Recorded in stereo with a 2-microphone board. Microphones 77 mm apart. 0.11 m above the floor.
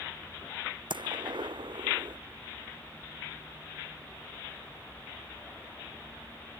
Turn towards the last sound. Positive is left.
turn(degrees=-80)